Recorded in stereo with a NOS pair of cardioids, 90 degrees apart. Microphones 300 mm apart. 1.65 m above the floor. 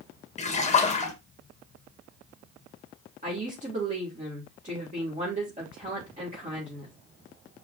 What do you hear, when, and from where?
0.4 s a splash: 25° left, 1.9 m
3.2 s a woman speaking: 25° right, 4 m